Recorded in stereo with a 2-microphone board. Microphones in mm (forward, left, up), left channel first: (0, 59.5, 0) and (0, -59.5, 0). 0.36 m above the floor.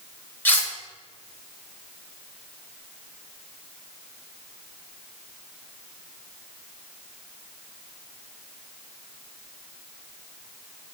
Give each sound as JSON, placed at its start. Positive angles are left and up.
{"t": 0.5, "sound": "cutlery clinking", "side_deg": 15, "distance_m": 0.8}